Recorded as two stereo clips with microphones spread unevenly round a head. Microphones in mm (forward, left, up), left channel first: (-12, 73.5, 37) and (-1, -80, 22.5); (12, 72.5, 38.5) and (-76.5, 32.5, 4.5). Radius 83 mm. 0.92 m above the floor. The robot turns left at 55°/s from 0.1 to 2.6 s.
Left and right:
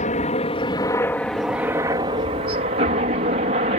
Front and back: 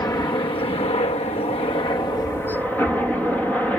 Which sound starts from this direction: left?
A helicopter, at 0.0 s.